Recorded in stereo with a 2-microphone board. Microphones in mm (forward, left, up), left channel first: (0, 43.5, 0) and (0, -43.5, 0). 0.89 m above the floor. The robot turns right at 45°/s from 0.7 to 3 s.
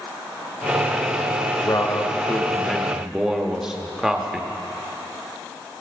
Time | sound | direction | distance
1.6 | a man speaking | 120° left | 1.1 m